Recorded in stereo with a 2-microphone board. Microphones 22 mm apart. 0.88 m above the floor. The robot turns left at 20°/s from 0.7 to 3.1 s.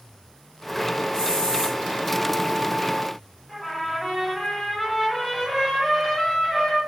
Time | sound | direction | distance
1.1 | a hiss | 40° left (ahead or behind) | 0.9 m
3.5 | a trumpet | 10° left (ahead or behind) | 1.1 m